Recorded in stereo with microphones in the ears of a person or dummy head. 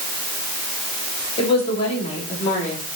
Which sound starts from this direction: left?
A woman speaking, at 1.4 s.